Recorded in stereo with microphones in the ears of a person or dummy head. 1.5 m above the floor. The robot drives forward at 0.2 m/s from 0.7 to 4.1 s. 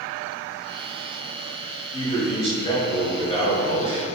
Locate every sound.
1.9 s a man speaking: 35° left (ahead or behind), 2 m; by 4.0 s 30° left (ahead or behind), 2.5 m